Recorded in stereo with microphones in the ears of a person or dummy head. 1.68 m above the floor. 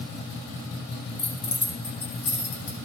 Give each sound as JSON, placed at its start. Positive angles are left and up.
{"t": 1.2, "sound": "keys jangling", "side_deg": 65, "distance_m": 2.5}